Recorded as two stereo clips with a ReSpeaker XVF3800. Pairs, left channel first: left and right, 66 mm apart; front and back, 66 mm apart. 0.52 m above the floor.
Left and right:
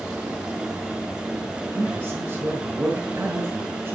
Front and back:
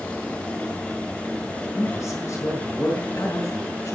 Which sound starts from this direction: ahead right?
A man speaking, at 1.8 s.